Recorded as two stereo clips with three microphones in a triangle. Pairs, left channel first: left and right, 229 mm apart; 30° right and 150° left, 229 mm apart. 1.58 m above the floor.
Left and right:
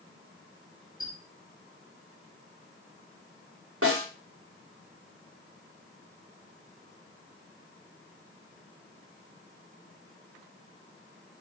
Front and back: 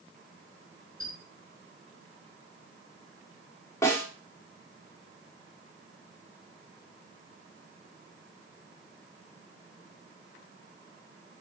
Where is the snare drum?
110° right, 5 m.